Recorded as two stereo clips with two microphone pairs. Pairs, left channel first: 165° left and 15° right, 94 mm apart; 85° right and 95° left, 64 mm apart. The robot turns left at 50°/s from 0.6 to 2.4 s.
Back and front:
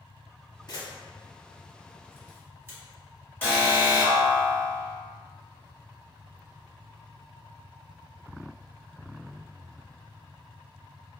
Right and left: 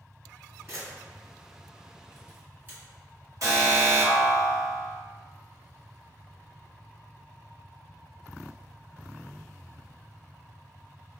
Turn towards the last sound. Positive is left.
turn(degrees=95)